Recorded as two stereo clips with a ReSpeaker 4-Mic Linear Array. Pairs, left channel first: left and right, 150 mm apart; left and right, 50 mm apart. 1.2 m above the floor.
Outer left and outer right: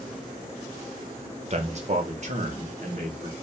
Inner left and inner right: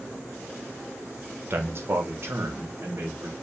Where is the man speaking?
45° right (ahead or behind), 1.0 m; by 3.3 s 55° right (ahead or behind), 2 m.